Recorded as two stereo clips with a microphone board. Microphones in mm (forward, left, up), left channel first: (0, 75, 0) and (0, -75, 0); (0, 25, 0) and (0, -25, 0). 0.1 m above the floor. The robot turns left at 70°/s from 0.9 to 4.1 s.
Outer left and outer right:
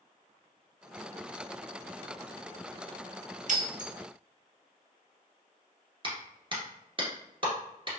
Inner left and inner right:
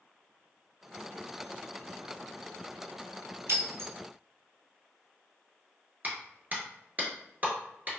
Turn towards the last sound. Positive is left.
turn(degrees=-35)  # may be behind; listen again after turning